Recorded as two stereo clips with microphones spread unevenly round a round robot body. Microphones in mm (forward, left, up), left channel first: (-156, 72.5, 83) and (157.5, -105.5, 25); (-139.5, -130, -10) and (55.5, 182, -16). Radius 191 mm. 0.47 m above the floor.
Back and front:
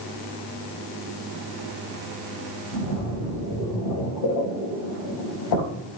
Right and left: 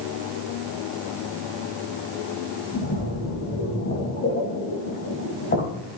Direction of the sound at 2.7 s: 175° left.